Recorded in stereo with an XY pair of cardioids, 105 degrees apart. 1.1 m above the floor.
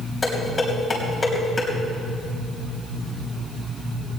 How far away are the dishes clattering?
About 4 m.